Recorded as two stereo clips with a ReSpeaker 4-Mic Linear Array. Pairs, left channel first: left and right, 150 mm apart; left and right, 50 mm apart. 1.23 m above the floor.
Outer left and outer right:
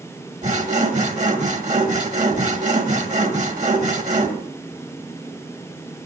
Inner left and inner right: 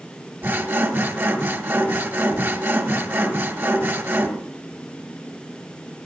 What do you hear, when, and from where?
0.4 s sawing: 50° right (ahead or behind), 1.7 m